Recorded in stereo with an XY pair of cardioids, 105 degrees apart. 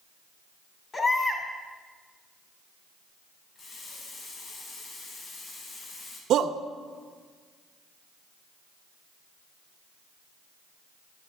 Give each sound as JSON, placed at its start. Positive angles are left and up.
{"t": 0.9, "sound": "a baby crying", "azimuth_deg": 35, "distance_m": 2.5}
{"t": 3.5, "sound": "a running tap", "azimuth_deg": 50, "distance_m": 5.0}
{"t": 6.3, "sound": "a shout", "azimuth_deg": -70, "distance_m": 0.7}